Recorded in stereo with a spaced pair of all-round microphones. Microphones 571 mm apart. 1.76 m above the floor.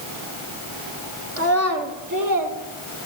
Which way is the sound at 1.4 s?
25° right (ahead or behind).